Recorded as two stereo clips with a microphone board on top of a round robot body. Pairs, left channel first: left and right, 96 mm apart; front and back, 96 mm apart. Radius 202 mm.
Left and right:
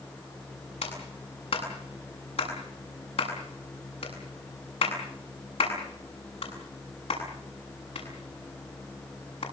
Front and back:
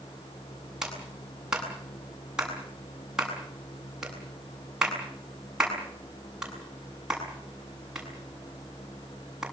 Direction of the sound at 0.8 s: 95° left.